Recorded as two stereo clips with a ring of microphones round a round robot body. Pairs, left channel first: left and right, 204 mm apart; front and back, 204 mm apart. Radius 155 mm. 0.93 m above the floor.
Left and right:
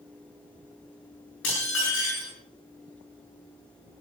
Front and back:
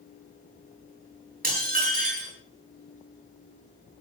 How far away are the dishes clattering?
About 8.5 m.